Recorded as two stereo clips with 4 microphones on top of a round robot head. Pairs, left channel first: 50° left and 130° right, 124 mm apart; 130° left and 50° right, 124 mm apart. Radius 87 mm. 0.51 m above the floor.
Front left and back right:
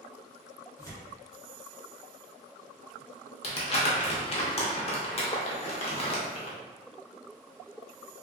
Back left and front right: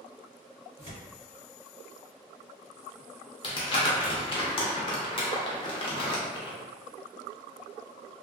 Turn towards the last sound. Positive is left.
turn(degrees=85)